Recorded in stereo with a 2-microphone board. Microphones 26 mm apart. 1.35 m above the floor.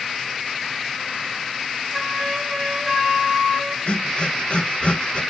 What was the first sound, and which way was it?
A flute, centre (ahead or behind).